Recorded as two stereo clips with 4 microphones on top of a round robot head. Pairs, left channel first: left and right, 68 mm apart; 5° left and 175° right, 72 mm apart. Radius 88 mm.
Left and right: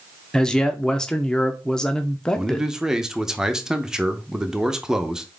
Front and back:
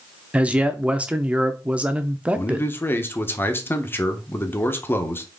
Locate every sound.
0.3 s a man speaking: 145° left, 0.7 m
2.4 s a man speaking: 15° right, 0.9 m